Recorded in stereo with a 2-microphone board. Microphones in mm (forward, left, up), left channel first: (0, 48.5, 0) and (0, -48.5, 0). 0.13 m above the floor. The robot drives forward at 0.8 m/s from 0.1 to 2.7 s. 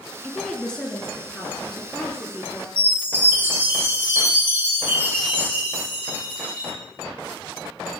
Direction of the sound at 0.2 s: 10° left (ahead or behind).